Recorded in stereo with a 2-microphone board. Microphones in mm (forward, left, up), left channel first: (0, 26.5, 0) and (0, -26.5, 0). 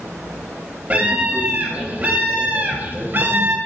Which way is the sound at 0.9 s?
30° right (ahead or behind).